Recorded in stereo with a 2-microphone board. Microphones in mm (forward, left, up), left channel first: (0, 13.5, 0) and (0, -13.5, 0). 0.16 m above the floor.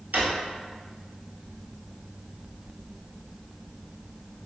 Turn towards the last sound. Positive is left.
turn(degrees=-75)  # may be behind; listen again after turning